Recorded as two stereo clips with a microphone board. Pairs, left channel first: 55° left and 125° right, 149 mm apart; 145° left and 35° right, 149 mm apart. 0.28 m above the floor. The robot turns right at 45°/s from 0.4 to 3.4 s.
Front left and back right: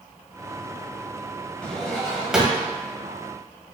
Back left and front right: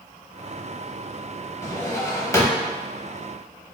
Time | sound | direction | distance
1.6 | a drawer | 125° left | 0.6 m